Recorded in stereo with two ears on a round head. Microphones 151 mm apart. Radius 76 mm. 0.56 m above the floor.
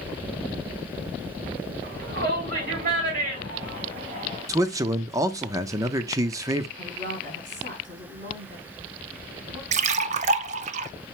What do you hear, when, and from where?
1.8 s a shout: 60° right (ahead or behind), 5.5 m; by 4.5 s 45° right (ahead or behind), 2.5 m
4.5 s a man speaking: 20° right (ahead or behind), 0.6 m
6.8 s a woman speaking: 50° right (ahead or behind), 4 m
9.7 s a splash: 40° right (ahead or behind), 0.6 m